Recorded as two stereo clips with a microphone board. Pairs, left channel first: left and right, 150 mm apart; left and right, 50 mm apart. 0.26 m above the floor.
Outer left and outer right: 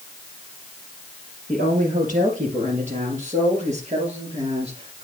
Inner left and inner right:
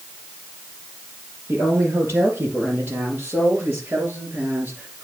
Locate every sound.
1.5 s a woman speaking: 60° right (ahead or behind), 4.5 m; by 5.0 s 45° right (ahead or behind), 3.5 m